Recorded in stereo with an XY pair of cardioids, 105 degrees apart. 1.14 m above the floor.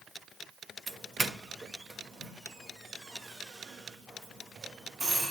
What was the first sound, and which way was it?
A doorbell, 30° right.